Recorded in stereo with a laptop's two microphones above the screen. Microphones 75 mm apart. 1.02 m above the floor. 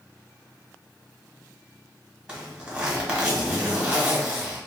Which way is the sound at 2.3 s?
10° right (ahead or behind).